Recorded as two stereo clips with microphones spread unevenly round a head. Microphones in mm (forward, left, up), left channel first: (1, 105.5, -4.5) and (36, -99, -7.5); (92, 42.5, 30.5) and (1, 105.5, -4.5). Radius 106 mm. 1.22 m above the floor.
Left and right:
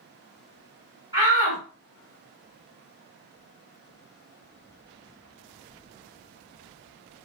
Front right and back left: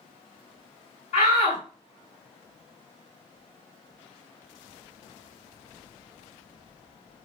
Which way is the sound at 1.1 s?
10° right.